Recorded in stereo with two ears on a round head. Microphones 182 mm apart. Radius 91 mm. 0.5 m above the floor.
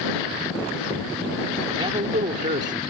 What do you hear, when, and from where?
1.7 s a man speaking: 20° right (ahead or behind); by 2.8 s 40° right (ahead or behind)